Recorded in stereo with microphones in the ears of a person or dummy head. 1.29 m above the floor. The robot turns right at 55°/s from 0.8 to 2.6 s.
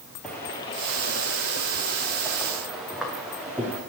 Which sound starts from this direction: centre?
Footsteps, at 0.2 s.